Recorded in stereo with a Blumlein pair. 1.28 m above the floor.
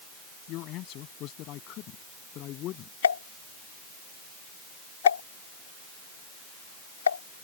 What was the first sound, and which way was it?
A man speaking, 40° left.